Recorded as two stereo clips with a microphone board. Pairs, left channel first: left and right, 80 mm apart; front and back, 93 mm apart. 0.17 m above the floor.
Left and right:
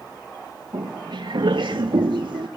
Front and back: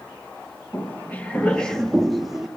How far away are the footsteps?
About 2 m.